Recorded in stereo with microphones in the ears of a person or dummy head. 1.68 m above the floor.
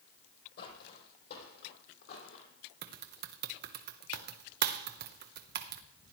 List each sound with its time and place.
0.6 s footsteps: 50° left (ahead or behind), 3 m; by 2.5 s 60° left (ahead or behind), 3.5 m
2.8 s typing on a keyboard: 50° right (ahead or behind), 0.8 m